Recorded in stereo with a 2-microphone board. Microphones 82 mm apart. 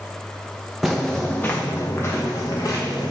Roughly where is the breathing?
I don't hear breathing.